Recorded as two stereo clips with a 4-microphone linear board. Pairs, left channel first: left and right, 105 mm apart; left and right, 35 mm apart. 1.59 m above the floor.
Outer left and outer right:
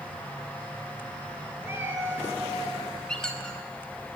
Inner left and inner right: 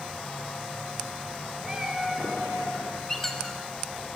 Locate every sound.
1.6 s a cat meowing: 25° right (ahead or behind), 2.5 m
3.1 s a squeak: 5° left (ahead or behind), 1.1 m